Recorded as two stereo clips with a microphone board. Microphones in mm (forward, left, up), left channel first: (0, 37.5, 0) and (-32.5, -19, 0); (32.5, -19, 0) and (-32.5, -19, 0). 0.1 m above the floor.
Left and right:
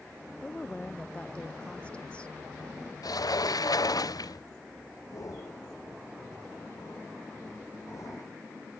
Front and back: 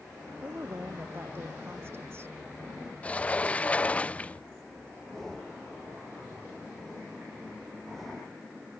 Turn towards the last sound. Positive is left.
turn(degrees=85)